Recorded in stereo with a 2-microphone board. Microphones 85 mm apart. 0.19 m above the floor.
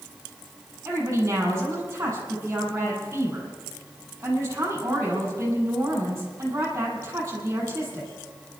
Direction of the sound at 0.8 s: 30° right (ahead or behind).